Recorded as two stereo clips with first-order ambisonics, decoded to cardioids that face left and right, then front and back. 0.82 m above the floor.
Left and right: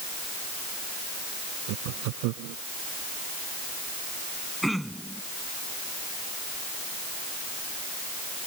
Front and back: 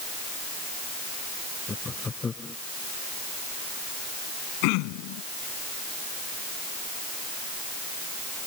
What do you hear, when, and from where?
1.7 s laughter: 75° right
4.6 s throat clearing: straight ahead